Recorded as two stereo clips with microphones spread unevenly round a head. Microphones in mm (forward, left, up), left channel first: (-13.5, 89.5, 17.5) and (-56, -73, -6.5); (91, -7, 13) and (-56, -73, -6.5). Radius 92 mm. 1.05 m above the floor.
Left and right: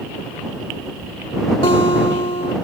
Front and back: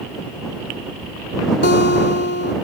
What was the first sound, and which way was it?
A guitar, 10° left.